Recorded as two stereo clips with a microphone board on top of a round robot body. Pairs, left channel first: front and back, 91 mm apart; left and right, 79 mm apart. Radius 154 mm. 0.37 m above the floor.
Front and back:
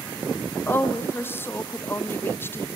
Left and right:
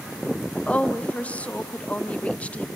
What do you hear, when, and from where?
0.7 s a woman speaking: 35° left, 0.9 m